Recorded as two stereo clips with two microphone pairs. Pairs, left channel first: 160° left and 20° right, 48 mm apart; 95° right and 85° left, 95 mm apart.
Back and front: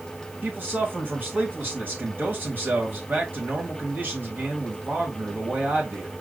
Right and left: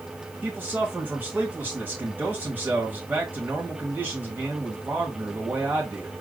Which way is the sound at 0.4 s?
20° left.